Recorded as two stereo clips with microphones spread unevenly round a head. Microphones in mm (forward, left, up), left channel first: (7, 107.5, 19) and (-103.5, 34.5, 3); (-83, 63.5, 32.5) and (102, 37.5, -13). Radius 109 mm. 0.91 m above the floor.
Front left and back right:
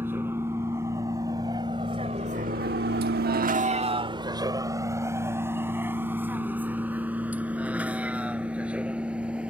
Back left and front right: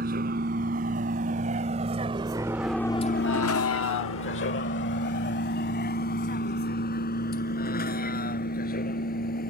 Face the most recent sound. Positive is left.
turn(degrees=130)